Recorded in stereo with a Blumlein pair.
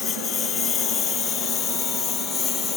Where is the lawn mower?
25° left; by 2.8 s 20° left.